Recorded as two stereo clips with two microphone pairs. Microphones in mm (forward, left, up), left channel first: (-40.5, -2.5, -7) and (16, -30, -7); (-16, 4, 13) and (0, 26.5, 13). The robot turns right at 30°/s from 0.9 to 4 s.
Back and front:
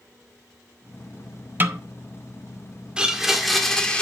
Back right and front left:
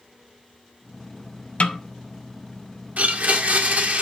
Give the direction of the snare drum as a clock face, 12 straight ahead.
3 o'clock.